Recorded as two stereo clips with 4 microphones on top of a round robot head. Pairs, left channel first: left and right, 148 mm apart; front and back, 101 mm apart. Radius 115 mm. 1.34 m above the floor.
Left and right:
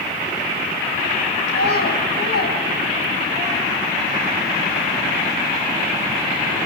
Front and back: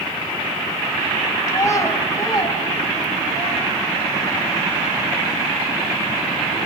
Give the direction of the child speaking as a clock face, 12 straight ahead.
10 o'clock.